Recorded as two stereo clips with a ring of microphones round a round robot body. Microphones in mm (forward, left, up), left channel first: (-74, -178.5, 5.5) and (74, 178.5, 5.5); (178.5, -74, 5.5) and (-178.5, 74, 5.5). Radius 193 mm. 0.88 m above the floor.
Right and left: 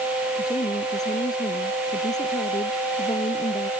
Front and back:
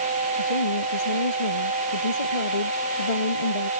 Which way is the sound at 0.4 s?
30° right.